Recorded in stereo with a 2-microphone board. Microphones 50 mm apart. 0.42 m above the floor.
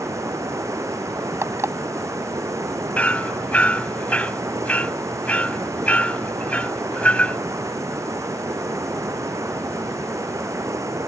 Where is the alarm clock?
70° right (ahead or behind).